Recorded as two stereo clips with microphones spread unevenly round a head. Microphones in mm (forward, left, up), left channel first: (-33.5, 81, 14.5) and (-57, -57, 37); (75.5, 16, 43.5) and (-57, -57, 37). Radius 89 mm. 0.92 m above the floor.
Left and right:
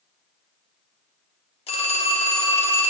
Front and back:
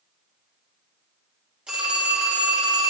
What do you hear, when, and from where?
1.7 s a phone ringing: 125° left, 1.6 m